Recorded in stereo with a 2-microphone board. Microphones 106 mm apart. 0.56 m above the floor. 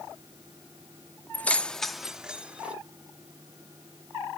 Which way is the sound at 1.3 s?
15° left (ahead or behind).